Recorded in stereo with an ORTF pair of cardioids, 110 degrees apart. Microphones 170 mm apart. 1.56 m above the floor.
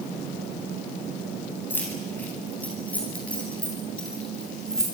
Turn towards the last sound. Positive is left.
turn(degrees=5)